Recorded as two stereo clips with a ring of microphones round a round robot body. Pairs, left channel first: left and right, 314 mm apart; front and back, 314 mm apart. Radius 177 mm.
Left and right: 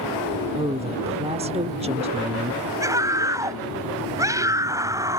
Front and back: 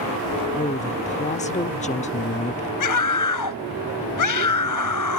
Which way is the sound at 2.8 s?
10° right.